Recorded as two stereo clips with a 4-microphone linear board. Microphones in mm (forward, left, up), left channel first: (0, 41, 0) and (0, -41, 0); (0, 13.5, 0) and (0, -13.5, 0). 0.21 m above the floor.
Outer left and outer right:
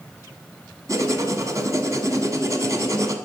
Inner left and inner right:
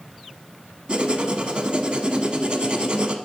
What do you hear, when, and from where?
0.9 s writing: 40° right (ahead or behind), 1.1 m